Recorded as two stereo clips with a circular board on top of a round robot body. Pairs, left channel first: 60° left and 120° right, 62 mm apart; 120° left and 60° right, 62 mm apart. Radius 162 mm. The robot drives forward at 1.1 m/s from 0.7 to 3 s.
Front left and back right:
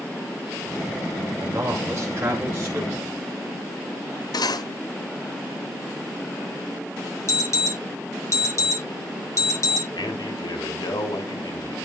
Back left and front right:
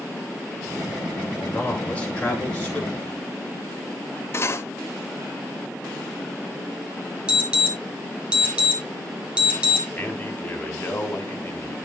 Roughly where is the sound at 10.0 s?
Ahead left.